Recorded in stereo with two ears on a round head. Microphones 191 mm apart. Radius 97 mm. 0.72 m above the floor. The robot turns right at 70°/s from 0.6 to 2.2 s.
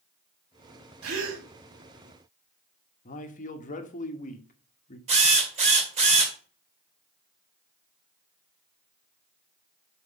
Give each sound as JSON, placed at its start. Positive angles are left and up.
{"t": 1.0, "sound": "a gasp", "side_deg": -75, "distance_m": 1.9}
{"t": 3.0, "sound": "a man speaking", "side_deg": 35, "distance_m": 1.1}
{"t": 5.1, "sound": "a drill", "side_deg": -30, "distance_m": 2.5}